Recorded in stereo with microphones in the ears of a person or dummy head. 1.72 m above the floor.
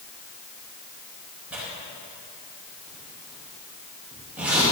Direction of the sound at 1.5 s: 10° right (ahead or behind).